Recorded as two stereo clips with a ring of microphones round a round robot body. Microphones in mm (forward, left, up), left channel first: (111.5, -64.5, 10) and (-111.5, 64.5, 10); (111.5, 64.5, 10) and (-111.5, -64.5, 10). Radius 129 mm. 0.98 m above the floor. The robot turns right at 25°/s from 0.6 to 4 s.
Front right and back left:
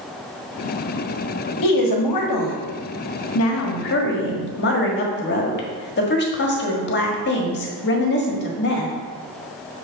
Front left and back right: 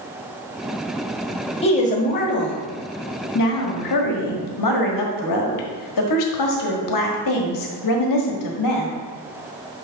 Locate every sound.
1.6 s a woman speaking: 40° right, 1.5 m; by 9.0 s 20° left, 1.5 m